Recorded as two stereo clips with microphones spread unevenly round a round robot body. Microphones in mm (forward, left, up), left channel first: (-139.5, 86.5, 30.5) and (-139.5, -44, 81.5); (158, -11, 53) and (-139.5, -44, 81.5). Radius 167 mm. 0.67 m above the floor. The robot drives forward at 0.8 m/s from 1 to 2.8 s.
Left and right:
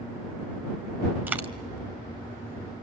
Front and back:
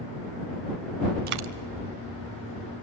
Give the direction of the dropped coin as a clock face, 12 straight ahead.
4 o'clock.